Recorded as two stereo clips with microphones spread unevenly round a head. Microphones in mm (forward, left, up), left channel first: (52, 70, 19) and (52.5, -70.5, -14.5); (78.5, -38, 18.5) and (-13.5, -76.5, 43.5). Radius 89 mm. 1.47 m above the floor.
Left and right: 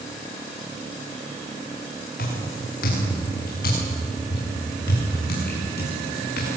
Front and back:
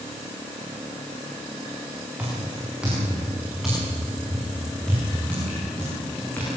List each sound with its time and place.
2.2 s footsteps: 125° left, 7.5 m; by 6.6 s 105° left, 8.5 m